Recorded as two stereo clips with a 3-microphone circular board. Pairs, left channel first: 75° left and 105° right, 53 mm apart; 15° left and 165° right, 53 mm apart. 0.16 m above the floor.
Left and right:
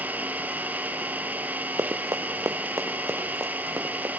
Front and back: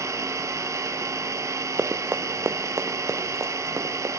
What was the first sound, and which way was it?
An engine running, 160° right.